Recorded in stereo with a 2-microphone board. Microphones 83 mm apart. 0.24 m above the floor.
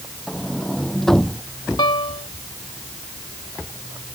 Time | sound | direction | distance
0.3 | a sliding door | 5° left (ahead or behind) | ?
1.8 | a piano | 60° left (ahead or behind) | ?